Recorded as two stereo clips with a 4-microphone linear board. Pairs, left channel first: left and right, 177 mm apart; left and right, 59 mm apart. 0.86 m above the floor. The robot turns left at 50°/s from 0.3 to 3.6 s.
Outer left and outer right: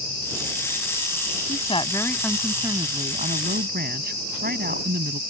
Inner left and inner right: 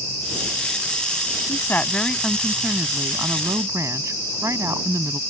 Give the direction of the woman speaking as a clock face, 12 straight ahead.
11 o'clock.